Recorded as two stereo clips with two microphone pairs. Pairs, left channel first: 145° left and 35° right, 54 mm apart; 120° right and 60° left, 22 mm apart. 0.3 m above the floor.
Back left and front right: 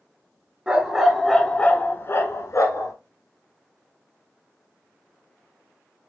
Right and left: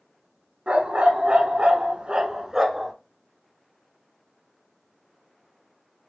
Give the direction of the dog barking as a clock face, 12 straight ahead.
11 o'clock.